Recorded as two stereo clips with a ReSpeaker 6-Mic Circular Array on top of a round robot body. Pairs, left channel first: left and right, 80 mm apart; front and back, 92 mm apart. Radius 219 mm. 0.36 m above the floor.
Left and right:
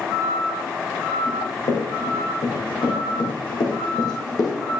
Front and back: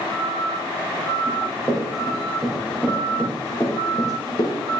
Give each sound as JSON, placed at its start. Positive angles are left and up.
{"t": 1.3, "sound": "running footsteps", "azimuth_deg": 95, "distance_m": 3.0}